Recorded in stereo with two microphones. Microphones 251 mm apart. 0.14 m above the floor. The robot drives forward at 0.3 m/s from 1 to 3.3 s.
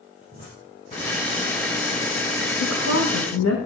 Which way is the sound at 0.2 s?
25° left (ahead or behind).